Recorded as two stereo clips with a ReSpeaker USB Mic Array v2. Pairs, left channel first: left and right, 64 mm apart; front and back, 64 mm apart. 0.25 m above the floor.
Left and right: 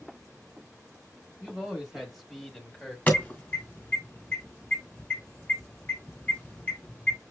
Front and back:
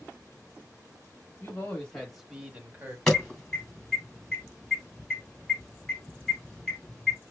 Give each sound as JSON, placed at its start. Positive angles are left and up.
{"t": 1.4, "sound": "a man speaking", "azimuth_deg": -10, "distance_m": 1.0}
{"t": 3.1, "sound": "an alarm", "azimuth_deg": 70, "distance_m": 1.6}